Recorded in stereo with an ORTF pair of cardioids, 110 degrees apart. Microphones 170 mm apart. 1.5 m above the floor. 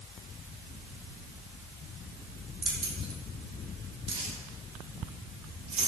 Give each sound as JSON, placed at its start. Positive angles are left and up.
{"t": 2.6, "sound": "keys jangling", "azimuth_deg": -30, "distance_m": 4.0}